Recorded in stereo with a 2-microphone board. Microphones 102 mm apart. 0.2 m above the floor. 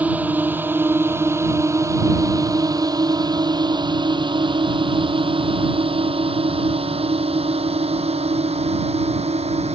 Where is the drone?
15° right (ahead or behind); by 9.8 s 75° right (ahead or behind).